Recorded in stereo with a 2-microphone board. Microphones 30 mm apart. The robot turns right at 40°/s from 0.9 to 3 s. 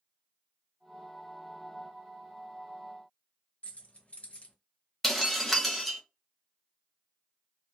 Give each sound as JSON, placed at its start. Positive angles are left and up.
{"t": 3.6, "sound": "keys jangling", "side_deg": 45, "distance_m": 0.8}
{"t": 5.0, "sound": "breaking glass", "side_deg": 5, "distance_m": 0.7}